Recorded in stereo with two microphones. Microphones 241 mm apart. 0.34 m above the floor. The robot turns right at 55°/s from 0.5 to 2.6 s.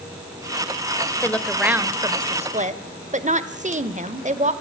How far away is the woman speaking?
About 1.0 m.